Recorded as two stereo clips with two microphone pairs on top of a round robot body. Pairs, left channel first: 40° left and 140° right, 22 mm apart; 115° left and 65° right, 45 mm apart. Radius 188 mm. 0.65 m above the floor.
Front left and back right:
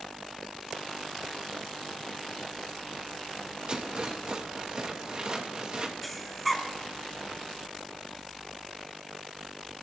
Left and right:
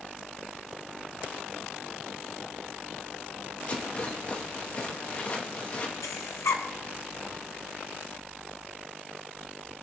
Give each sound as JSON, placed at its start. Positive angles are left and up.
{"t": 3.7, "sound": "a rattle", "azimuth_deg": 170, "distance_m": 2.5}
{"t": 6.0, "sound": "breathing", "azimuth_deg": 125, "distance_m": 1.6}